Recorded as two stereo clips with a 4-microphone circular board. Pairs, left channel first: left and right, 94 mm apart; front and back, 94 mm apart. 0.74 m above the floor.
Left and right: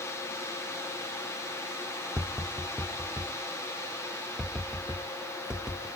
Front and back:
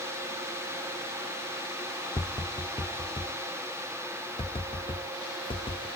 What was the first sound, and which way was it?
Tapping, 10° right.